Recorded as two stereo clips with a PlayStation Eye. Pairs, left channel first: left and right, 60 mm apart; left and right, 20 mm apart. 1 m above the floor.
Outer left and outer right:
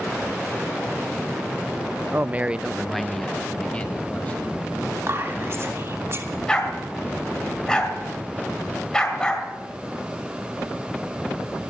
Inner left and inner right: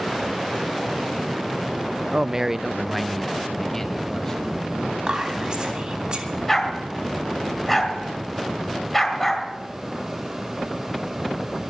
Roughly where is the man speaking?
Right.